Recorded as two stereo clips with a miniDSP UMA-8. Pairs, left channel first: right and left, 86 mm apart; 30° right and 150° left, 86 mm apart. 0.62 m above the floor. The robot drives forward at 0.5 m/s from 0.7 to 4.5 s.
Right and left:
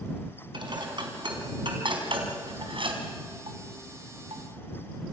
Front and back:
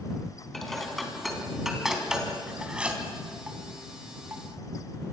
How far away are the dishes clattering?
About 4 m.